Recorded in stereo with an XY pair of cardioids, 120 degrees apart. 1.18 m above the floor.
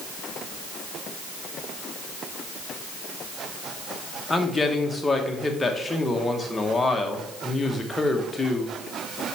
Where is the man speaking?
15° left, 1.2 m.